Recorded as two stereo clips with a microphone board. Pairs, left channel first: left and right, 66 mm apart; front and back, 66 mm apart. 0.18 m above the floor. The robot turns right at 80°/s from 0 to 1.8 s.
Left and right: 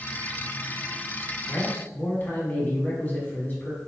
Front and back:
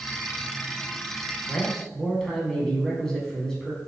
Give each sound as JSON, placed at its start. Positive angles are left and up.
{"t": 1.5, "sound": "a man speaking", "azimuth_deg": 45, "distance_m": 1.1}